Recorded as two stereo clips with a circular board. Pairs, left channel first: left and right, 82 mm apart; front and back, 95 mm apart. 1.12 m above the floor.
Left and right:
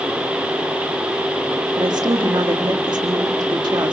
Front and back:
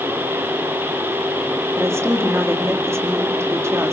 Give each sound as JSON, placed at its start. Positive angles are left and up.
{"t": 1.8, "sound": "a woman speaking", "azimuth_deg": -120, "distance_m": 1.9}